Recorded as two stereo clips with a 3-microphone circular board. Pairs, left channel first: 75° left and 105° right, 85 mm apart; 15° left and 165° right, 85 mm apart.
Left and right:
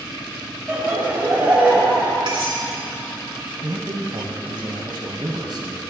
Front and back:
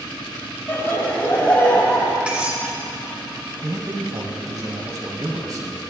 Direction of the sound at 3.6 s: 125° right.